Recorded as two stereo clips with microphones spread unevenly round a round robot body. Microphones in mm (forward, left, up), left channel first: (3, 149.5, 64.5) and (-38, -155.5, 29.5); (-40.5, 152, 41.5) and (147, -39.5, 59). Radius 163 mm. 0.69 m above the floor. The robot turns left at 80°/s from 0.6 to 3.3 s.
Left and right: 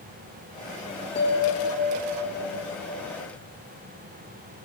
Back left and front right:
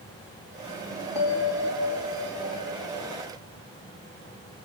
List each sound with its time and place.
1.1 s a bell: 145° left, 5 m; by 3.0 s 10° right, 5 m